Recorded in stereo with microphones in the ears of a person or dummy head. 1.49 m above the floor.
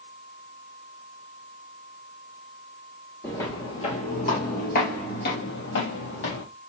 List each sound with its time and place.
3.2 s footsteps: 10° left (ahead or behind), 1.6 m; by 6.4 s 60° left (ahead or behind), 3 m